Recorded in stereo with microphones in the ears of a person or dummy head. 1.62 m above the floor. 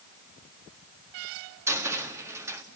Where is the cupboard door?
10° right (ahead or behind), 1.3 m.